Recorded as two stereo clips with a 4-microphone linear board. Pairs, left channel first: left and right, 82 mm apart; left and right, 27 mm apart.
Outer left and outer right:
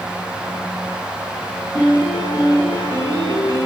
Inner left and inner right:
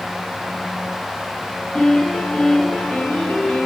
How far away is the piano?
About 7 m.